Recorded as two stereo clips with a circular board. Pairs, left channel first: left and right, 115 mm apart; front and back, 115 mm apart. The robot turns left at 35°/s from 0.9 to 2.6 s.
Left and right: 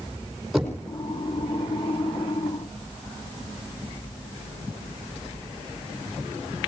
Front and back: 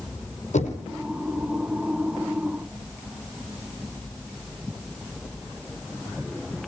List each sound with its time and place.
0.5 s knocking: straight ahead, 5 m